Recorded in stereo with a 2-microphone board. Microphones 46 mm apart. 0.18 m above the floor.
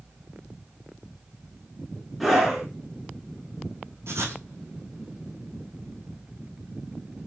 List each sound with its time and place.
2.2 s a scream: centre (ahead or behind), 1.9 m
4.1 s writing: 75° right (ahead or behind), 1.3 m